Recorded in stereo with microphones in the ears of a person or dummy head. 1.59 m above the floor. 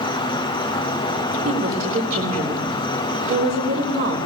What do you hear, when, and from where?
0.0 s an insect: 20° left (ahead or behind), 0.8 m
1.4 s a woman speaking: 45° right (ahead or behind), 5 m